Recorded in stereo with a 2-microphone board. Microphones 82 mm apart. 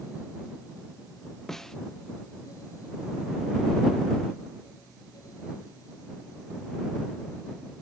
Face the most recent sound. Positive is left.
turn(degrees=5)  # may be behind; listen again after turning